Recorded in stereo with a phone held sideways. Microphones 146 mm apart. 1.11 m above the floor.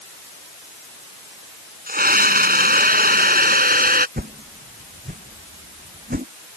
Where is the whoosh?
85° right.